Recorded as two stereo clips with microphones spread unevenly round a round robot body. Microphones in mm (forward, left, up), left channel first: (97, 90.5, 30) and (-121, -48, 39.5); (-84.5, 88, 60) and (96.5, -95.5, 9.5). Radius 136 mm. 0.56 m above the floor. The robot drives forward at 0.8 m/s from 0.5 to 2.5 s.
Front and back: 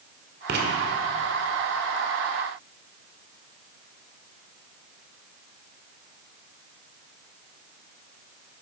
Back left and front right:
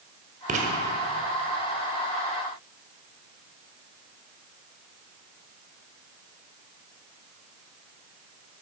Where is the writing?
100° right, 1.8 m; by 0.7 s 105° right, 1.8 m.